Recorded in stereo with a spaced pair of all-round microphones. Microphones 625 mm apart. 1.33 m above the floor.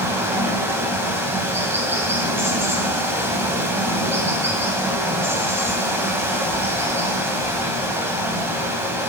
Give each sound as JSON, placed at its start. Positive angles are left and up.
{"t": 0.0, "sound": "running water", "side_deg": -5, "distance_m": 2.5}